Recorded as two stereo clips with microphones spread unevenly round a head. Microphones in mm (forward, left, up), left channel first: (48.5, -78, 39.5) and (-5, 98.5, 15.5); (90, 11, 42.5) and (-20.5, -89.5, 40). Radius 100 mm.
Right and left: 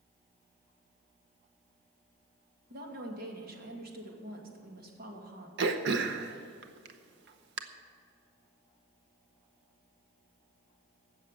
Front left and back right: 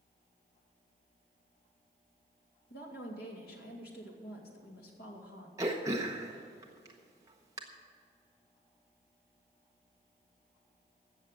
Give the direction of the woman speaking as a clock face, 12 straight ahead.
10 o'clock.